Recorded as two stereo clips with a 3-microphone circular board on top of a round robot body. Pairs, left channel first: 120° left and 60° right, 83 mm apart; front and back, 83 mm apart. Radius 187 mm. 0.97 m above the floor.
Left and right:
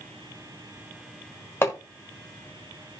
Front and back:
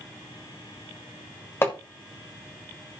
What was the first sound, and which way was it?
Hammering, 60° left.